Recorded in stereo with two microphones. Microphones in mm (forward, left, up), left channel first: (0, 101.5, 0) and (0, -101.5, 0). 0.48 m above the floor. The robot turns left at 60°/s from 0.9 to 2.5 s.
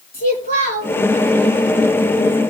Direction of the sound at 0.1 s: 45° left (ahead or behind).